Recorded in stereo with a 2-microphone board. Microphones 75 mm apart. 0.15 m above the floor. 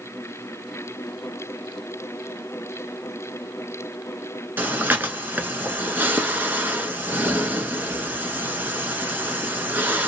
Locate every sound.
4.6 s breathing: 25° right (ahead or behind), 0.8 m